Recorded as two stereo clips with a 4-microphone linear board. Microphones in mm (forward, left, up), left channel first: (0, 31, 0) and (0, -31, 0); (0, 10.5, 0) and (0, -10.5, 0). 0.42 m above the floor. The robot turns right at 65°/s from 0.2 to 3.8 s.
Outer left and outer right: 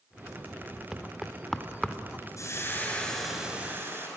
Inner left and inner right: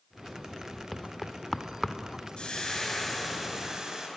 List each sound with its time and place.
0.9 s knocking: 15° right (ahead or behind), 0.7 m; by 2.0 s 15° left (ahead or behind), 0.7 m
2.4 s frying: 120° left, 5 m; by 4.1 s 145° right, 5 m